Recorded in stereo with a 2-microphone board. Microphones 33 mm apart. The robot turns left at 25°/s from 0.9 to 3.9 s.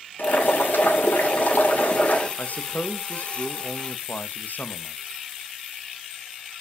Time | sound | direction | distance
0.2 | boiling | 85° left | 2.5 m
2.4 | a man speaking | 120° left | 0.8 m